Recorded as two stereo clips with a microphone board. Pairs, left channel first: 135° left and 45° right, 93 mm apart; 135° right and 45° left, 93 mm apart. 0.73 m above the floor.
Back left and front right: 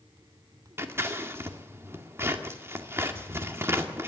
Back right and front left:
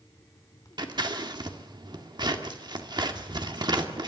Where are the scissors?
15° left, 1.9 m.